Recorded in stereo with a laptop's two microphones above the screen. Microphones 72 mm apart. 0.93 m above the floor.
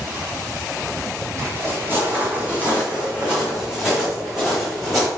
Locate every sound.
1.4 s footsteps: 40° right (ahead or behind), 2 m; by 5.1 s centre (ahead or behind), 3.5 m